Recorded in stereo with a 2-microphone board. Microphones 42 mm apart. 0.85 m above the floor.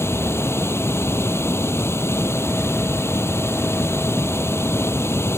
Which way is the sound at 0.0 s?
90° left.